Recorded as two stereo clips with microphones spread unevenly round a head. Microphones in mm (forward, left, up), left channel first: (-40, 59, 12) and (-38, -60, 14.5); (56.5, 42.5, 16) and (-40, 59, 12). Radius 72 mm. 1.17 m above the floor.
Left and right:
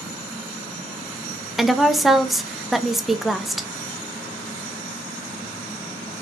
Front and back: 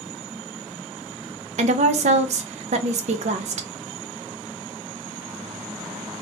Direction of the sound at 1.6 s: Straight behind.